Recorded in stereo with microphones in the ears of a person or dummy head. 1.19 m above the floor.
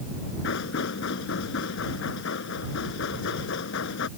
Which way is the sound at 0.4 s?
70° left (ahead or behind).